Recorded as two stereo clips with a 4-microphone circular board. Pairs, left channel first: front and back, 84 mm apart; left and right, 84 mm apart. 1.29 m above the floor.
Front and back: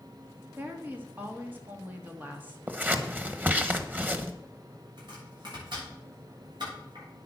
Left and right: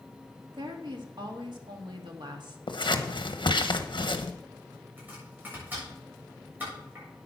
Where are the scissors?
110° left, 1.1 m.